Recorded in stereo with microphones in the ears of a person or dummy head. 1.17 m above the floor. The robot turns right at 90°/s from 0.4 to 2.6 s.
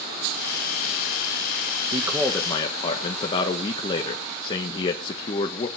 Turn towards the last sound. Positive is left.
turn(degrees=25)